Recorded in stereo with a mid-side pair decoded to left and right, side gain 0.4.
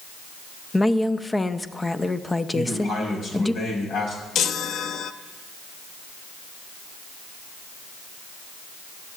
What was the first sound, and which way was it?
A woman speaking, 15° left.